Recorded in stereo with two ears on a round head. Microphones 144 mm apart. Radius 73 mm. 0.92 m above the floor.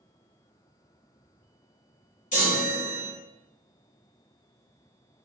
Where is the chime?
50° left (ahead or behind), 1.0 m.